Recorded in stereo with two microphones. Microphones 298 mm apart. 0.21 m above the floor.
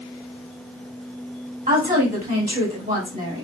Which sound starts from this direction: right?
A woman speaking, at 1.7 s.